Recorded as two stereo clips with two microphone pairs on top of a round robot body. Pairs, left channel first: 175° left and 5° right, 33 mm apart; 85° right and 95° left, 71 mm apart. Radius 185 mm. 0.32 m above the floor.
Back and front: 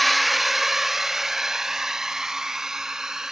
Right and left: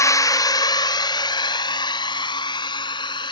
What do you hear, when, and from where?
0.0 s a drone: 95° right; by 3.3 s 80° right